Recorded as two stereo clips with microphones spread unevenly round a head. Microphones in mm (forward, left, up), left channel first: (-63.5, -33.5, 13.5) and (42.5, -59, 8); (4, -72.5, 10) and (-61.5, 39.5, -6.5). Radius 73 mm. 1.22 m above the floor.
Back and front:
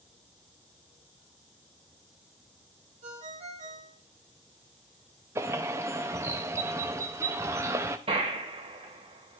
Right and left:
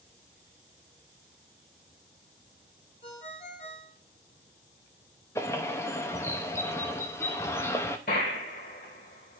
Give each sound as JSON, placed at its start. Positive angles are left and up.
{"t": 3.0, "sound": "a ringtone", "azimuth_deg": -10, "distance_m": 1.3}
{"t": 5.3, "sound": "a bird", "azimuth_deg": 0, "distance_m": 0.6}
{"t": 8.1, "sound": "a gunshot", "azimuth_deg": -40, "distance_m": 2.0}